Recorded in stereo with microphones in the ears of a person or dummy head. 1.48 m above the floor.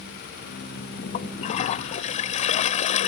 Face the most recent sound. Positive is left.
turn(degrees=45)  # may be behind; listen again after turning